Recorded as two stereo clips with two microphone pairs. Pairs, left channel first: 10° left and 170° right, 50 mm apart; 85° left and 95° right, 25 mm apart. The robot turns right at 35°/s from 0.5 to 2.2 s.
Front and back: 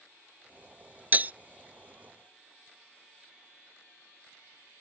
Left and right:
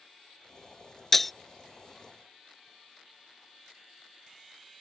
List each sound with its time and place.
1.1 s breaking glass: 160° left; by 1.3 s 165° left